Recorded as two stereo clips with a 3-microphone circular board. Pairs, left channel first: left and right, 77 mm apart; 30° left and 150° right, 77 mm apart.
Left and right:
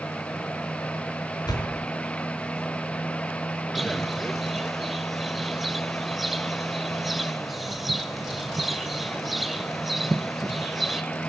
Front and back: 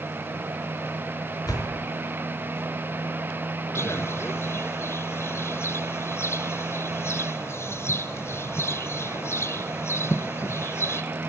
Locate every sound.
1.5 s a door slam: 65° left, 5 m
3.8 s a bird: 5° right, 1.6 m